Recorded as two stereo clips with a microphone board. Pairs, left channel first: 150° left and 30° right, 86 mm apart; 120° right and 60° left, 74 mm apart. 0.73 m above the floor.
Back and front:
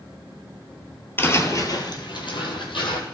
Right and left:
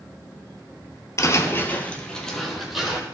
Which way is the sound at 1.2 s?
150° right.